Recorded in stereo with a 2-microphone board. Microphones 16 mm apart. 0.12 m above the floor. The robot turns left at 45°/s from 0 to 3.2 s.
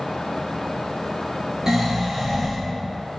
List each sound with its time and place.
1.7 s snoring: 140° right, 0.7 m; by 2.6 s 175° left, 0.7 m